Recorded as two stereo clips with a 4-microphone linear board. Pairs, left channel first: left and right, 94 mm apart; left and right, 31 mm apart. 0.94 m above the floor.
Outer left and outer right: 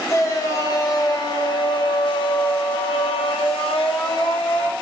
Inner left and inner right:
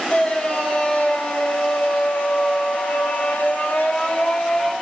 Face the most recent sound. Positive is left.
turn(degrees=60)  # may be behind; listen again after turning